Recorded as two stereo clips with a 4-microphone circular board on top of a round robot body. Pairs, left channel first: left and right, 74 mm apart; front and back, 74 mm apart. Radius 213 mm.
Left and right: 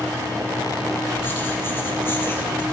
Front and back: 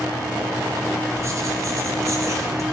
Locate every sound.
1.2 s writing: 145° left, 1.7 m